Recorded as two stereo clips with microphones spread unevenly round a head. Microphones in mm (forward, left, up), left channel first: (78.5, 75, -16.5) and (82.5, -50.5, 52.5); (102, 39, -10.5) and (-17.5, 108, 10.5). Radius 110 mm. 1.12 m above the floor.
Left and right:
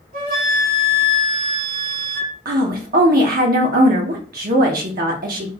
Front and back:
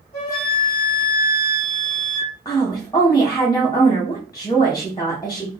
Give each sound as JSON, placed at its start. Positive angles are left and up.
{"t": 0.1, "sound": "a flute", "azimuth_deg": -105, "distance_m": 1.6}
{"t": 2.5, "sound": "a woman speaking", "azimuth_deg": -105, "distance_m": 0.5}